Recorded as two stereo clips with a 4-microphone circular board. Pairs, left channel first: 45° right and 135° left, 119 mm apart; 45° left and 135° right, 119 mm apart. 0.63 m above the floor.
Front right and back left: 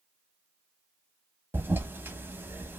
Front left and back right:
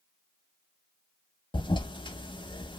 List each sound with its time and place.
1.5 s a toilet flushing: 70° left, 0.6 m